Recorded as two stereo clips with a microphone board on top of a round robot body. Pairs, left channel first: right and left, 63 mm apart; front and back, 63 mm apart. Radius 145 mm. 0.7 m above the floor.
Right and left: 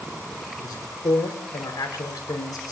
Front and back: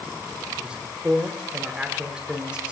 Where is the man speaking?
105° right, 4 m.